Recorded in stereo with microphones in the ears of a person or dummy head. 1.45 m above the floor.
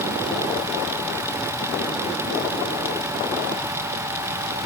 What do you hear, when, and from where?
Only background noise.